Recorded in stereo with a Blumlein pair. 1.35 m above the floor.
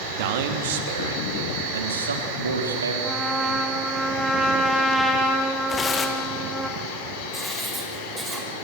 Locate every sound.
0.1 s a man speaking: 50° right, 2.5 m; by 2.9 s 75° right, 3.5 m
3.0 s a trumpet: straight ahead, 2.5 m
5.7 s tearing paper: 15° left, 2.5 m
7.3 s writing: 5° right, 5 m